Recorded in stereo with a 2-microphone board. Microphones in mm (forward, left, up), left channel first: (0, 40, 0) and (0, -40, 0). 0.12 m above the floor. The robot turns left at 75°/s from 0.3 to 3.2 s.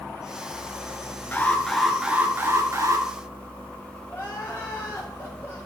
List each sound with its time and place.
1.3 s an alarm: 40° left, 1.5 m; by 3.1 s 95° right, 1.5 m
4.1 s crying: 30° left (ahead or behind), 4 m